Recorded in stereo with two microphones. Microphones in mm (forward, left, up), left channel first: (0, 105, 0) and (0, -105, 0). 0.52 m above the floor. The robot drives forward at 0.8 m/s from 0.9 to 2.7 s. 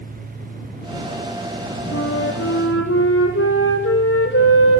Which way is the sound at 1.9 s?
85° left.